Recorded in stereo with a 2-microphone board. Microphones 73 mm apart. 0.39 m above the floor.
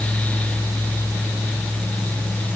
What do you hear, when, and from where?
Only background noise.